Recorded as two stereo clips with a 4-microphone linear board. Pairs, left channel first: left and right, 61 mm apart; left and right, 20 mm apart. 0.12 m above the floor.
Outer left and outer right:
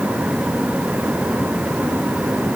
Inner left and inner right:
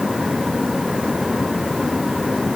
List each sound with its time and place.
Only background noise.